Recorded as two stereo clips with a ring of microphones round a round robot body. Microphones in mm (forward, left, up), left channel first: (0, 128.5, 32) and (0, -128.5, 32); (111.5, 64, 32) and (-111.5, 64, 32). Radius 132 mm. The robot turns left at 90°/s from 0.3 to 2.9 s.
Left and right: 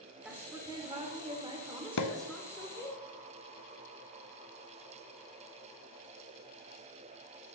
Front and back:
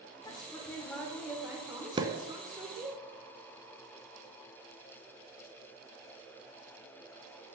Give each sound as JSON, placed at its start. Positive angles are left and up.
{"t": 0.2, "sound": "a woman speaking", "azimuth_deg": -15, "distance_m": 1.2}
{"t": 2.0, "sound": "a pop", "azimuth_deg": 110, "distance_m": 0.6}